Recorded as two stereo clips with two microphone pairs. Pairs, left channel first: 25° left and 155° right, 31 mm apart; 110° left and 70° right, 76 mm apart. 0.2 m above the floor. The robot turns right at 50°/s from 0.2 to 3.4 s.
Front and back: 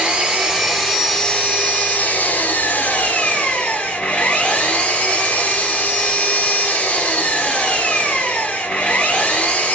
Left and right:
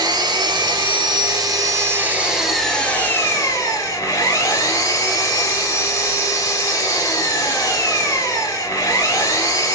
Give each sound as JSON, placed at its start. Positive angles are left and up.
{"t": 0.0, "sound": "an engine running", "azimuth_deg": -95, "distance_m": 1.9}